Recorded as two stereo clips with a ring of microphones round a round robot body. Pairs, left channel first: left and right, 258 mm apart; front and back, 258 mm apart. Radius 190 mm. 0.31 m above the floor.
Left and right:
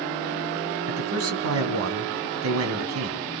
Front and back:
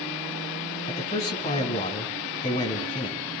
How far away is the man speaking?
About 3 m.